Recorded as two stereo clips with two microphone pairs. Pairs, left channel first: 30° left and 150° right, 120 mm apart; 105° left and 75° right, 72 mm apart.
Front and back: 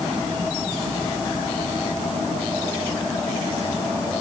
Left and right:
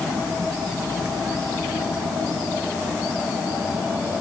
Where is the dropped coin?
No dropped coin in this recording.